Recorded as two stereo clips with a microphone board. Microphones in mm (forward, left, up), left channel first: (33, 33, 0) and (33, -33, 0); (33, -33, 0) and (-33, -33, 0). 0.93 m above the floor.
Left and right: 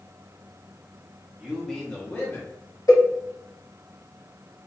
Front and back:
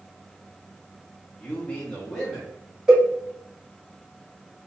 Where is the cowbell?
105° left, 2.0 m.